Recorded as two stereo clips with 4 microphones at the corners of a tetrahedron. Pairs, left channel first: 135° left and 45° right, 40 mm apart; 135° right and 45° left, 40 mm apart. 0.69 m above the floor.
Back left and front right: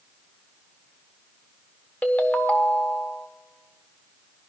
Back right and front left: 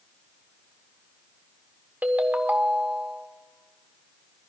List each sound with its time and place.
2.0 s a ringtone: 90° left, 1.1 m